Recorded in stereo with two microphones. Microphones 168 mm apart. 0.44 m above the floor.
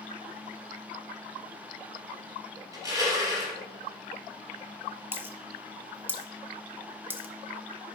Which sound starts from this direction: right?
Crushing, at 2.7 s.